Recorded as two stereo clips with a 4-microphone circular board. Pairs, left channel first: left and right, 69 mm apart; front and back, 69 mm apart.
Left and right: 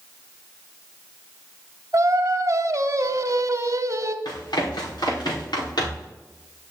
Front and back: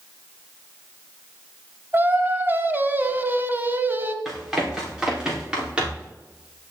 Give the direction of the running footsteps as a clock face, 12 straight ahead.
9 o'clock.